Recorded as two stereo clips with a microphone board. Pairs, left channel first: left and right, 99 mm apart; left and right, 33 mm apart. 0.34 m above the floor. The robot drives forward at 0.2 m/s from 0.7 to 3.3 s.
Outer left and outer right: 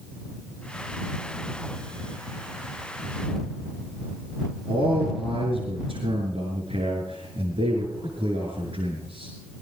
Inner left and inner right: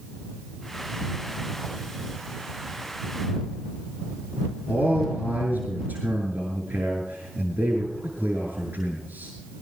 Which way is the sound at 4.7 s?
80° right.